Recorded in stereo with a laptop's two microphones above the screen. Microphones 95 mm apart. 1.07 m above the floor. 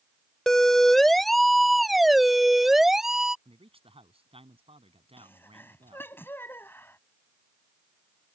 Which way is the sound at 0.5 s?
5° left (ahead or behind).